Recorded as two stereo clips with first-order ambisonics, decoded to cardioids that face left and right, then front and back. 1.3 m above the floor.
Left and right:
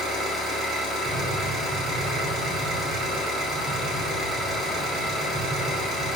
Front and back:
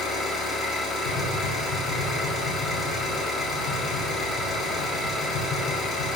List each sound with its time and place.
0.0 s an engine running: 40° right, 1.0 m
1.1 s tapping: straight ahead, 0.8 m